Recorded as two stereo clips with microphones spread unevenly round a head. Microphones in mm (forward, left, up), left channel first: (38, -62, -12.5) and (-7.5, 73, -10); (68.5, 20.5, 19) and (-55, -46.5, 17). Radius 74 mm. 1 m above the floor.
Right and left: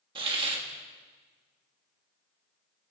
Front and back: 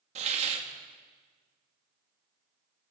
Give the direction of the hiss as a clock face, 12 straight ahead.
6 o'clock.